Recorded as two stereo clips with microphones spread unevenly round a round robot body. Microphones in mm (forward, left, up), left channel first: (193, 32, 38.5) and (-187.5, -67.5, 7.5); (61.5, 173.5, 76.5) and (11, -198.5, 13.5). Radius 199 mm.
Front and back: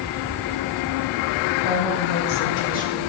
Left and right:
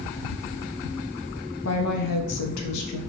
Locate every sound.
1.6 s a woman speaking: 25° left, 1.4 m; by 3.0 s 95° left, 1.5 m